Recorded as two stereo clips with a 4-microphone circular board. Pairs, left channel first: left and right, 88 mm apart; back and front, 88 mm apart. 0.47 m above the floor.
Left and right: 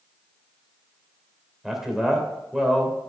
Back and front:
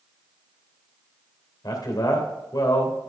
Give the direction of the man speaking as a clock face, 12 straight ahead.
6 o'clock.